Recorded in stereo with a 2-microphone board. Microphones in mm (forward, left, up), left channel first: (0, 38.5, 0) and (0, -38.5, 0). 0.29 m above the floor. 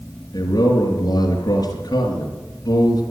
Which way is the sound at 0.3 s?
60° left (ahead or behind).